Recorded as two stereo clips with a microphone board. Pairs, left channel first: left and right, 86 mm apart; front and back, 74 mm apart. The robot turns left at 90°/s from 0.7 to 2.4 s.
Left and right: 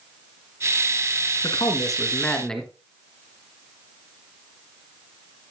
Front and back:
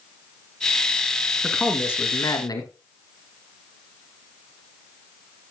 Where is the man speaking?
95° left, 2 m; by 2.7 s 10° left, 2 m.